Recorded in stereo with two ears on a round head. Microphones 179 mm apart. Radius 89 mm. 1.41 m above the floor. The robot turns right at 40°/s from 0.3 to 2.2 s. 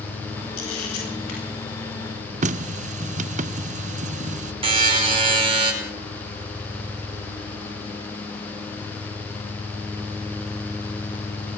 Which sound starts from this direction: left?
A camera shutter, at 0.6 s.